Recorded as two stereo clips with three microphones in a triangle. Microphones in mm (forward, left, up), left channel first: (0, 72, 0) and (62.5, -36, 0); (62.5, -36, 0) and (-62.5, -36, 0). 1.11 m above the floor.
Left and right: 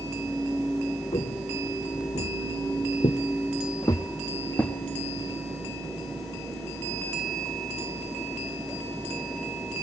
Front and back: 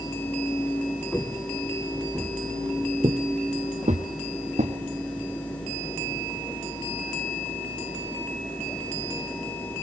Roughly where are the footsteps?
Left.